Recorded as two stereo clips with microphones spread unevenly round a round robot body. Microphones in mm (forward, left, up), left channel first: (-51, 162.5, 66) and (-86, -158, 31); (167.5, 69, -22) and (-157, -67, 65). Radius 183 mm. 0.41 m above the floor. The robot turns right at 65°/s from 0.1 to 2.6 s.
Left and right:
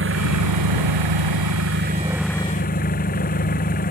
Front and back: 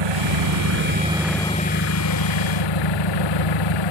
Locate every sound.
0.0 s an engine running: 145° right; by 3.9 s 15° left